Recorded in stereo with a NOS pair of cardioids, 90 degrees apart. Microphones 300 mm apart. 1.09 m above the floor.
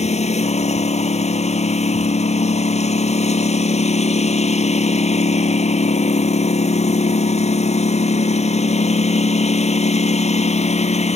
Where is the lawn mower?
20° left.